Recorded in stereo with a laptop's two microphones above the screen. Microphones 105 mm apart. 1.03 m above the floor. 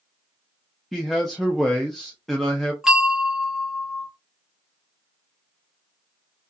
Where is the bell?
10° right (ahead or behind), 0.6 m.